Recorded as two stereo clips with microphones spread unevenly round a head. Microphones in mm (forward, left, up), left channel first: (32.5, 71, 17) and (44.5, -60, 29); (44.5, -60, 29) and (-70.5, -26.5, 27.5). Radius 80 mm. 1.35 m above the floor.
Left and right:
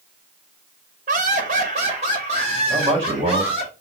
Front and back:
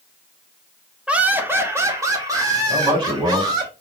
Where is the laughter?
115° right, 1.1 m; by 3.7 s 140° right, 4 m.